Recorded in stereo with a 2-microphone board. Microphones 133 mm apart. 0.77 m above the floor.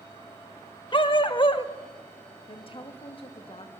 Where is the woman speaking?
40° left (ahead or behind), 1.2 m.